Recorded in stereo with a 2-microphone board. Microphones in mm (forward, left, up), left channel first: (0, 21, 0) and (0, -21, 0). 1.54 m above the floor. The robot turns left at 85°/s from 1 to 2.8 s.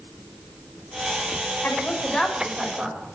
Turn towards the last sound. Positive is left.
turn(degrees=-45)